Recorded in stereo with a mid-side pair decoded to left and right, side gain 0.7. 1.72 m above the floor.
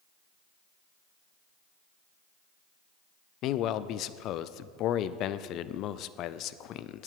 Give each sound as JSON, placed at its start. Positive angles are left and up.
{"t": 3.4, "sound": "a man speaking", "azimuth_deg": 55, "distance_m": 0.5}